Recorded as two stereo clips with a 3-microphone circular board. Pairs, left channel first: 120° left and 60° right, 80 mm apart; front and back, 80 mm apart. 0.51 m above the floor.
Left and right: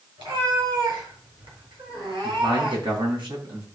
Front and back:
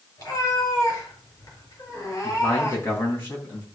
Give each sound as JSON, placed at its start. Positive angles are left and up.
{"t": 0.2, "sound": "a cat meowing", "azimuth_deg": -45, "distance_m": 4.5}
{"t": 2.2, "sound": "a man speaking", "azimuth_deg": -60, "distance_m": 4.0}